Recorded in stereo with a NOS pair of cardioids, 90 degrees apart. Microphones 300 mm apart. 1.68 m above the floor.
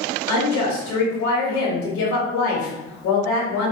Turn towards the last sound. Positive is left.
turn(degrees=70)